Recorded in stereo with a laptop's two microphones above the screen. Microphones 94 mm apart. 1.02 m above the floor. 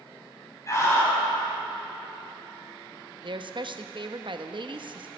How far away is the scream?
About 6.5 m.